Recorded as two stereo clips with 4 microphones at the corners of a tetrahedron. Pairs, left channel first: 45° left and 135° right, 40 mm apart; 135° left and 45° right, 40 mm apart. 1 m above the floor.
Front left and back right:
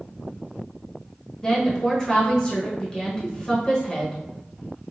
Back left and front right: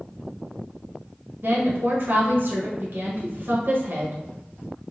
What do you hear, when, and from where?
1.4 s a woman speaking: 25° right, 0.9 m